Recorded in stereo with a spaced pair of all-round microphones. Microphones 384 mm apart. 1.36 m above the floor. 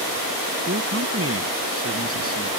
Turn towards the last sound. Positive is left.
turn(degrees=-35)  # may be behind; listen again after turning